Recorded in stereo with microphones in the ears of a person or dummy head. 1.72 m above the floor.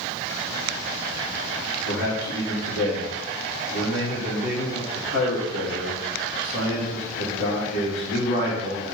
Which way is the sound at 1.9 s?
75° left (ahead or behind).